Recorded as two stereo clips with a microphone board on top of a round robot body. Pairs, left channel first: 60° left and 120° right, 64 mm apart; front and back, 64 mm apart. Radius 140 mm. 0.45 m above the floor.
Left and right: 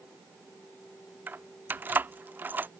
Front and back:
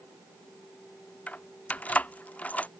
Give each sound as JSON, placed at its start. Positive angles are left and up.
{"t": 1.3, "sound": "keys jangling", "azimuth_deg": -65}